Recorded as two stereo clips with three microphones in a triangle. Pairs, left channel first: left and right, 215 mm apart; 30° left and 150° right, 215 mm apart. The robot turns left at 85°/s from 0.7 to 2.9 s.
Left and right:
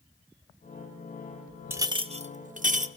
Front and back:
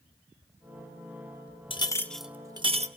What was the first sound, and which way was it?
A clink, 20° right.